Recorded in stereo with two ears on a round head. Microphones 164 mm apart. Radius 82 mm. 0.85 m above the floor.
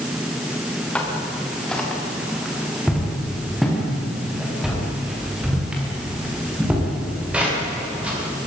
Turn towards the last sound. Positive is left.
turn(degrees=-10)  # may be behind; listen again after turning